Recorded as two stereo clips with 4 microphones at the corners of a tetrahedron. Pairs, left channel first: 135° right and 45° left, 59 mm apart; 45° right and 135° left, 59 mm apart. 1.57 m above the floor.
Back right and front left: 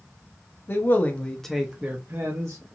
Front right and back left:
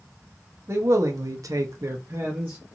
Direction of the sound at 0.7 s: 175° left.